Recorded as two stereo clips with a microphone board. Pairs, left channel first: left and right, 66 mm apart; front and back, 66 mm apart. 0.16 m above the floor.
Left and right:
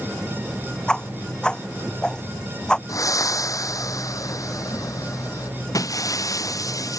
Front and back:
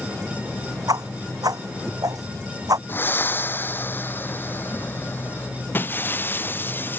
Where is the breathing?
60° left.